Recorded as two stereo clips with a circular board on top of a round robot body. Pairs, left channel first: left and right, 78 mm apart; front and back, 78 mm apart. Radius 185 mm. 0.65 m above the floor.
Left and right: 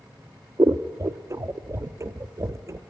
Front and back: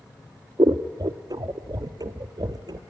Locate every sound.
0.6 s scissors: 145° right, 0.8 m